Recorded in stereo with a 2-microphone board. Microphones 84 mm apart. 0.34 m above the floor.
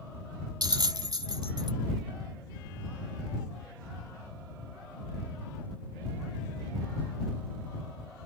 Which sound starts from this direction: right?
A bell, at 0.6 s.